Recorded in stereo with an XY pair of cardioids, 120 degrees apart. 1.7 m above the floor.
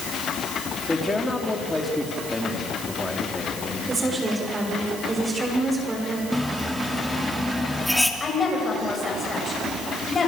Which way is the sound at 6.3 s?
5° left.